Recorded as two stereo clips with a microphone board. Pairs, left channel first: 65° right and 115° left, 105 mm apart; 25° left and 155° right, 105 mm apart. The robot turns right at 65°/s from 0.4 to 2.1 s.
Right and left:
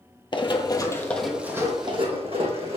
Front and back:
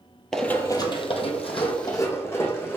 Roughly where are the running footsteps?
Ahead right.